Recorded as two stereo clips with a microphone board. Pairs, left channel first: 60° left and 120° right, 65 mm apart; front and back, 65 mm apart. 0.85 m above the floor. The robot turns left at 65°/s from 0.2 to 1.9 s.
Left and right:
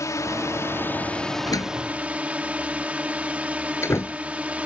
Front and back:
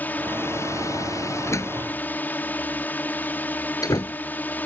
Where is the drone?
55° left; by 4.7 s 55° right.